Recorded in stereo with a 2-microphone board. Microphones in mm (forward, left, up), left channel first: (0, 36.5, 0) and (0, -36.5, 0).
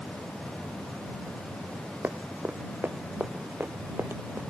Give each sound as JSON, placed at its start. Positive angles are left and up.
{"t": 2.0, "sound": "running footsteps", "side_deg": -25}